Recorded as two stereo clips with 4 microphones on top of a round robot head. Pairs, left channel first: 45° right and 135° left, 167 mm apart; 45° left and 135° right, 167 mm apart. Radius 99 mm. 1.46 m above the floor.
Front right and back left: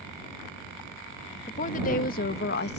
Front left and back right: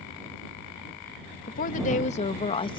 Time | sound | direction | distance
1.5 | a woman speaking | 5° left | ?